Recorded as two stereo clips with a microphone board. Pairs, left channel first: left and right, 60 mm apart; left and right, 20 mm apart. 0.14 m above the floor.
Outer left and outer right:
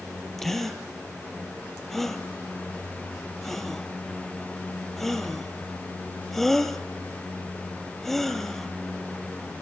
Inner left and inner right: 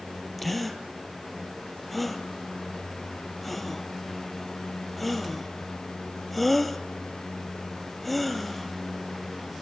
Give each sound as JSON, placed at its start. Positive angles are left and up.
{"t": 0.4, "sound": "a gasp", "side_deg": 5, "distance_m": 2.0}